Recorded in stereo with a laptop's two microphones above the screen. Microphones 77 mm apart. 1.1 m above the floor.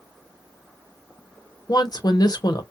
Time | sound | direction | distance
1.7 | a woman speaking | 55° left (ahead or behind) | 0.7 m